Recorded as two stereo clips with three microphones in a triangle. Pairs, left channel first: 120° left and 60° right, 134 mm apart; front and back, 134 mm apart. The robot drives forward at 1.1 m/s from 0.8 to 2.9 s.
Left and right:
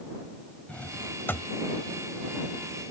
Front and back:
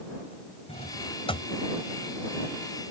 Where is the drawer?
40° left; by 1.5 s 50° left.